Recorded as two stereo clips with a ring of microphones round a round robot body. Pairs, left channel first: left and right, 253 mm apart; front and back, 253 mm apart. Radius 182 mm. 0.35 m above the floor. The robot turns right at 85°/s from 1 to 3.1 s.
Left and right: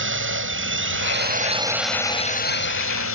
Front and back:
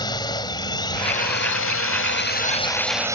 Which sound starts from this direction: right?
A drone, at 0.0 s.